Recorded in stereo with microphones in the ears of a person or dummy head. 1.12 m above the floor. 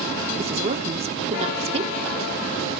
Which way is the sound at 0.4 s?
35° right (ahead or behind).